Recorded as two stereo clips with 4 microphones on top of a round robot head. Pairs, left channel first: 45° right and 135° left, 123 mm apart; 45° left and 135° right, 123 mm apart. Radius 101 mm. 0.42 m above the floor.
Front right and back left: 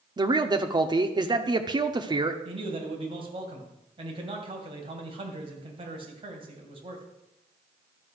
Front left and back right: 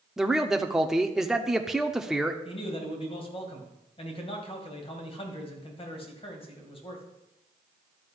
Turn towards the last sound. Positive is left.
turn(degrees=85)